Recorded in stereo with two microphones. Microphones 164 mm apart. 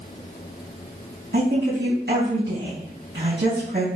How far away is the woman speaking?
About 4.5 m.